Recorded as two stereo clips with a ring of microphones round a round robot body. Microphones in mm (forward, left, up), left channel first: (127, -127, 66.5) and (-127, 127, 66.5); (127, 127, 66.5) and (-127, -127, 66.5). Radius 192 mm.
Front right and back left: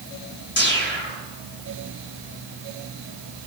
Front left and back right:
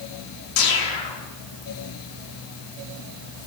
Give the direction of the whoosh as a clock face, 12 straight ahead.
11 o'clock.